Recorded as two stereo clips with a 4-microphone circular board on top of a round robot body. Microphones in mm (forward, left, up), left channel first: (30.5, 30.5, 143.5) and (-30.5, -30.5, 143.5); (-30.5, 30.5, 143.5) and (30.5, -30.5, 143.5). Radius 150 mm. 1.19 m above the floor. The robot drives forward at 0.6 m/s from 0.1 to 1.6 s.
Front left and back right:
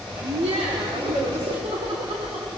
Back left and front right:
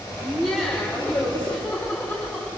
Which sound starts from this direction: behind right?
Laughter, at 0.2 s.